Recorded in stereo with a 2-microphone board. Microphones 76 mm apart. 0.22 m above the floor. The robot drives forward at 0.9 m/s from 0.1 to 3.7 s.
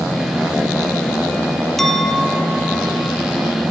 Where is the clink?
5° left (ahead or behind), 3 m; by 3.2 s 10° left (ahead or behind), 2.0 m.